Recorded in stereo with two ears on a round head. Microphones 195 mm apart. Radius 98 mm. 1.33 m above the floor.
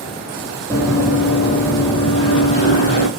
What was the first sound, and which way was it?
Running footsteps, 20° right (ahead or behind).